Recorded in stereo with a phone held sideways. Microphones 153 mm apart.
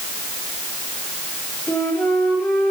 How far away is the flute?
About 4 m.